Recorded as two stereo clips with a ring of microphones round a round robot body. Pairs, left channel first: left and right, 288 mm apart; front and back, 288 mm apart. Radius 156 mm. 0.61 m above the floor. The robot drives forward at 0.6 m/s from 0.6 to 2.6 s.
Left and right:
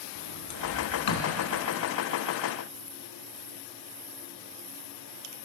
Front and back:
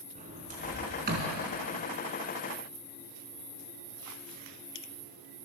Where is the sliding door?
110° left, 3.5 m; by 1.4 s 120° left, 4 m.